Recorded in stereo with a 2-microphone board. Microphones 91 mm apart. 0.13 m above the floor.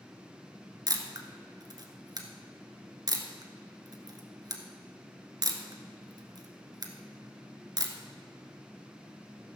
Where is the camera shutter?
45° right (ahead or behind), 1.2 m.